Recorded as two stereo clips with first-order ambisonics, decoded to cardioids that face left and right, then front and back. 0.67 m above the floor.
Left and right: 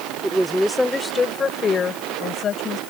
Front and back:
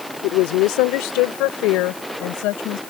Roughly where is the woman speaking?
Ahead.